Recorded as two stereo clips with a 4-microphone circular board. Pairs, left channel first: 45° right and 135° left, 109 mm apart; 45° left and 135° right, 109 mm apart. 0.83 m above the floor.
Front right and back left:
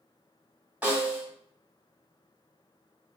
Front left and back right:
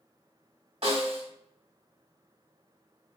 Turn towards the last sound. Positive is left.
turn(degrees=-150)